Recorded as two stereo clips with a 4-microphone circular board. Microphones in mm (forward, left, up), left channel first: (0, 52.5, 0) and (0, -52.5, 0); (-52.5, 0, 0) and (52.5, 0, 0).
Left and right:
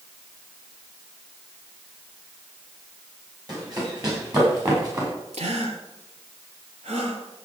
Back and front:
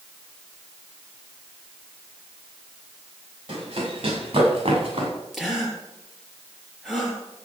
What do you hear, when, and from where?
3.5 s running footsteps: 40° right, 8 m; by 5.1 s 35° right, 7 m
5.3 s a gasp: 90° right, 3 m